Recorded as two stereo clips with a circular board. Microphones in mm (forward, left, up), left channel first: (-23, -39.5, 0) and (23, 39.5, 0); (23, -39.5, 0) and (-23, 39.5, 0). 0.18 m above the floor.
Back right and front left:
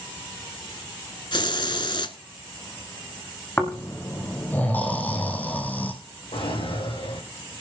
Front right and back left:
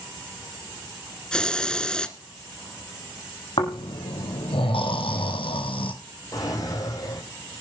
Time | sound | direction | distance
1.3 | a hiss | 140° right | 0.9 m
3.6 | snoring | 50° right | 2.5 m
6.3 | a drawer | 110° right | 5.5 m